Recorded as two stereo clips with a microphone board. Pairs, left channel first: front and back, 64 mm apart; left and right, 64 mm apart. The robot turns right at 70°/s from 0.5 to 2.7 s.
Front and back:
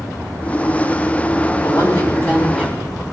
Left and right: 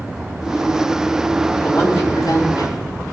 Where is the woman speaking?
10° left, 4.5 m; by 2.8 s 85° left, 4.5 m.